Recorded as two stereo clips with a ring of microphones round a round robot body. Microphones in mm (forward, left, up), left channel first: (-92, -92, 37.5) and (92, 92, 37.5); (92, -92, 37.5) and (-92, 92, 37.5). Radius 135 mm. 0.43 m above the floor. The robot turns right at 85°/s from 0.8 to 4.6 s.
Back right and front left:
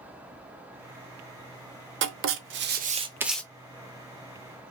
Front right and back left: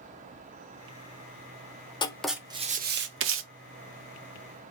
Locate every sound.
2.0 s writing: 20° left, 0.6 m; by 3.4 s 140° left, 0.6 m